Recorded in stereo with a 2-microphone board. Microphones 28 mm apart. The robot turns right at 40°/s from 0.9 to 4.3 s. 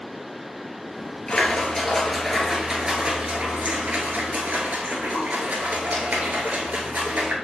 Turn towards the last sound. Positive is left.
turn(degrees=-95)